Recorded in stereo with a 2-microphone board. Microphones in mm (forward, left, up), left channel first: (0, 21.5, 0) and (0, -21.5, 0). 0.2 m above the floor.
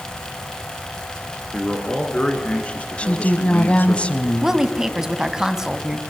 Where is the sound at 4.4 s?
10° right (ahead or behind), 1.3 m.